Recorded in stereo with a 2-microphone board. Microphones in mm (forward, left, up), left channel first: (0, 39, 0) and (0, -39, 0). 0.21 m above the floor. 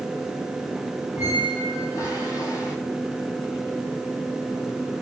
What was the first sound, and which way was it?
A squeak, 45° left (ahead or behind).